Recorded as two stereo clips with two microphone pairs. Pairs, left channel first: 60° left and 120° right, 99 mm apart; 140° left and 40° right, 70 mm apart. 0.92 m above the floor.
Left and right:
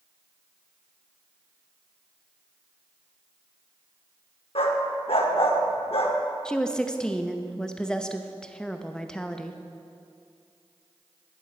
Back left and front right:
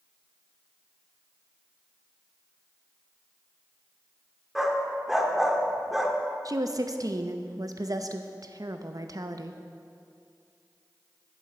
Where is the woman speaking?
15° right, 0.6 m.